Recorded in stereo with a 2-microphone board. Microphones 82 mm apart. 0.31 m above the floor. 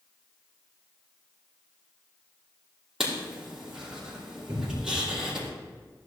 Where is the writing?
5° right (ahead or behind), 5 m.